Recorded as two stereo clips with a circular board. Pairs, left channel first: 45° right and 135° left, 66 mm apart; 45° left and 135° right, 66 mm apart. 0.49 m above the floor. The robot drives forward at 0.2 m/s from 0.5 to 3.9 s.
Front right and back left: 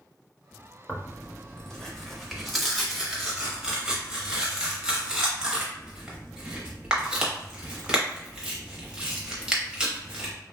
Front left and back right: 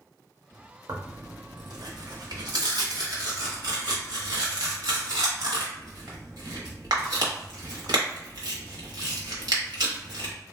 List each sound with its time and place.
0.9 s tearing paper: 115° right, 0.6 m; by 10.3 s 150° right, 1.0 m